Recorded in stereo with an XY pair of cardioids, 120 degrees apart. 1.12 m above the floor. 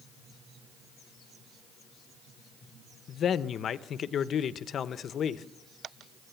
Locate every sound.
3.1 s a man speaking: 50° left, 0.9 m